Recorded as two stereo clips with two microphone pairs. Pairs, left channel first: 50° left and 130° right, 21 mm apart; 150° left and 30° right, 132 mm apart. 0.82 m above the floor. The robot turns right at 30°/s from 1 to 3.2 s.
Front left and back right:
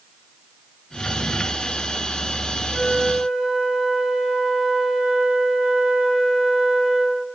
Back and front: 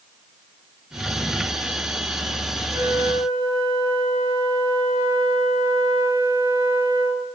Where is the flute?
95° right, 8 m; by 7.3 s 80° right, 8 m.